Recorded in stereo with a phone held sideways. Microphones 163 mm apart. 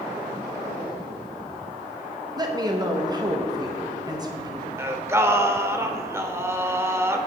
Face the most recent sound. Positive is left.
turn(degrees=-15)  # may be behind; listen again after turning